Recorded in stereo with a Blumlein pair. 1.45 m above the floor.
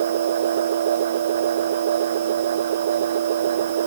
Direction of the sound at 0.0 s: 60° right.